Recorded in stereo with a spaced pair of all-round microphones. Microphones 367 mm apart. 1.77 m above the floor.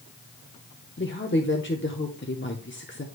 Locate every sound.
1.0 s a woman speaking: 30° left (ahead or behind), 0.9 m